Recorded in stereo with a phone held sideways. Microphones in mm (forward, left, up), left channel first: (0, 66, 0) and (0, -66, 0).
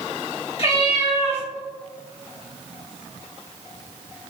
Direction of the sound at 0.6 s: 45° left (ahead or behind).